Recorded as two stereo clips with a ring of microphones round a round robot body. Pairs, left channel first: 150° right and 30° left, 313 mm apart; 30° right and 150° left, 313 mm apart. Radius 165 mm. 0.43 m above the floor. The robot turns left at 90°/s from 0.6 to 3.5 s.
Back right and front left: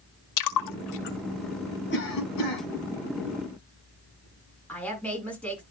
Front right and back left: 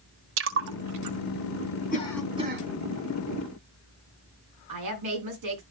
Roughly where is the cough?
Right.